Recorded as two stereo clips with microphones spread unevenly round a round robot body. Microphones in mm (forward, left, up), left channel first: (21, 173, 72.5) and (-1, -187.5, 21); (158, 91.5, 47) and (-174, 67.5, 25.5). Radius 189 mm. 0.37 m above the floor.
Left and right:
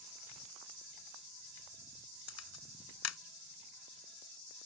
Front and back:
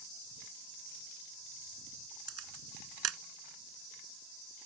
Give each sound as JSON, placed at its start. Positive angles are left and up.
{"t": 2.3, "sound": "a camera shutter", "azimuth_deg": 140}